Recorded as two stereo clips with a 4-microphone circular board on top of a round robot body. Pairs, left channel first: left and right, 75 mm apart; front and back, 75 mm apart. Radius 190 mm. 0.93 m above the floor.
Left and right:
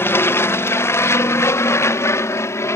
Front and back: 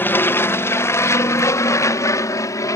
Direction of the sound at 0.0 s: 50° left.